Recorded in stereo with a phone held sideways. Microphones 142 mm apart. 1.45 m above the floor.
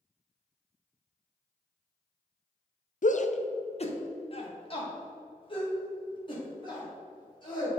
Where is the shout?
65° left (ahead or behind), 0.7 m; by 7.7 s 35° left (ahead or behind), 4 m.